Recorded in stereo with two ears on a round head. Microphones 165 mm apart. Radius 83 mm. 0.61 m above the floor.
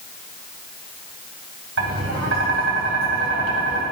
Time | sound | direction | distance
1.8 | tapping | 80° right | 2.5 m